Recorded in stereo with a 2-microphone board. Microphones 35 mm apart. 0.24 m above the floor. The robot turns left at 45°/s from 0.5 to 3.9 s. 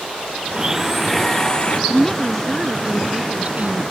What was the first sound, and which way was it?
A blender, 155° right.